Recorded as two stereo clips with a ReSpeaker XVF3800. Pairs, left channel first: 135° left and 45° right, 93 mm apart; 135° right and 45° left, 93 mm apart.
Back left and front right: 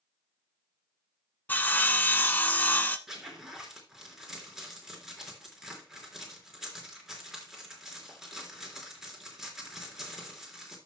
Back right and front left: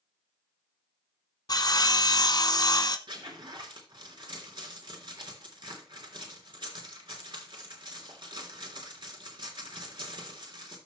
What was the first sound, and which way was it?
Sawing, 160° right.